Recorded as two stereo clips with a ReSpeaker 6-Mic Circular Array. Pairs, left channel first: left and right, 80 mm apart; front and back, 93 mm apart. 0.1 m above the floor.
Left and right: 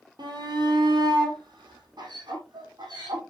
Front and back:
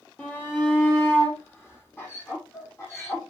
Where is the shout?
75° right, 3 m; by 3.2 s 60° right, 5.5 m.